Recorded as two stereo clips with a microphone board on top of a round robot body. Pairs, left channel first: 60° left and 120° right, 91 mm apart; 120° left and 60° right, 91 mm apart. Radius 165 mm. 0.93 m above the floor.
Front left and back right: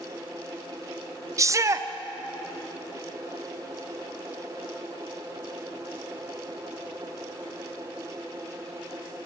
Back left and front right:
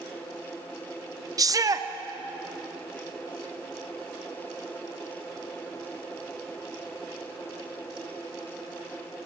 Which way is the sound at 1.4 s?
85° right.